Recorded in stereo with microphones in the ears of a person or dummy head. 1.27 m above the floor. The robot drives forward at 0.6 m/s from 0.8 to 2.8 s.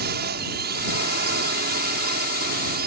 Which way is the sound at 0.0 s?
45° right (ahead or behind).